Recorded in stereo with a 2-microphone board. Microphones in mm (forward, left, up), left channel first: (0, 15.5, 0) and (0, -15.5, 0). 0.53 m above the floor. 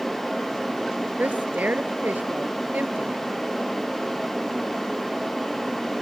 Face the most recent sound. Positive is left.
turn(degrees=-85)